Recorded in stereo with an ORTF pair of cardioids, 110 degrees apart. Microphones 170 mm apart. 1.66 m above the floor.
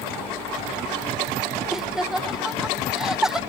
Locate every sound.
1.7 s laughter: straight ahead, 0.6 m